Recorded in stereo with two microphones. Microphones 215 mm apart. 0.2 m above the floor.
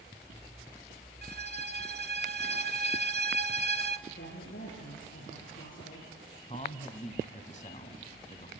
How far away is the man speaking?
About 1.7 m.